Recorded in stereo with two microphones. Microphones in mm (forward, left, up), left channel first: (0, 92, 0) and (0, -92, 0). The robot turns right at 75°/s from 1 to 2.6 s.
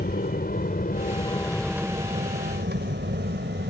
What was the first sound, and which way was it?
An aircraft, 55° left (ahead or behind).